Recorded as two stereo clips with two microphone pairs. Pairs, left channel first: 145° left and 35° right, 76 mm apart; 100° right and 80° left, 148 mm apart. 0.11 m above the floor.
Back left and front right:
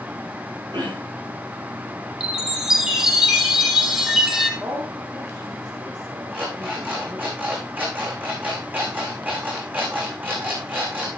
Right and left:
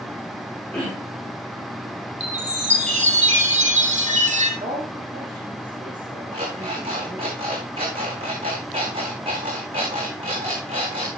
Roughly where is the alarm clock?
Ahead left.